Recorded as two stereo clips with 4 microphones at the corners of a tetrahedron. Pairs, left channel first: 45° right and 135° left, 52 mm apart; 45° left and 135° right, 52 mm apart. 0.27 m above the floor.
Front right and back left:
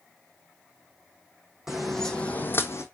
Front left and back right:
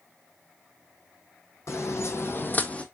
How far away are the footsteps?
About 0.9 m.